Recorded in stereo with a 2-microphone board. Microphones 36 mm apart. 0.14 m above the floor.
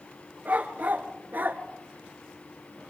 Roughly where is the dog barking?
Right.